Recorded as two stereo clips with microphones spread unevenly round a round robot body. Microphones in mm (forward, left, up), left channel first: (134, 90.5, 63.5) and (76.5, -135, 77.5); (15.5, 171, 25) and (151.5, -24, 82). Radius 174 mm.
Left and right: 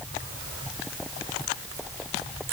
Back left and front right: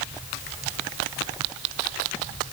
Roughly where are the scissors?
No scissors in this recording.